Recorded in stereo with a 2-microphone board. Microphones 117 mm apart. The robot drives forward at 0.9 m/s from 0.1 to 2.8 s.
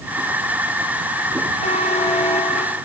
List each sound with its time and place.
1.6 s a buzzer: 80° left, 2.5 m; by 2.8 s 70° left (ahead or behind), 2.5 m